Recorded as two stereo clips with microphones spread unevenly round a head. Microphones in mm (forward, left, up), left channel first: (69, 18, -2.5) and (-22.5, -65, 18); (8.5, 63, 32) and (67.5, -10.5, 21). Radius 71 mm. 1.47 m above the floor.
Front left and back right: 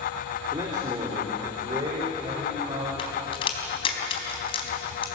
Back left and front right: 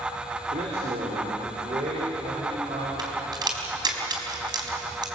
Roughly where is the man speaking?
Right.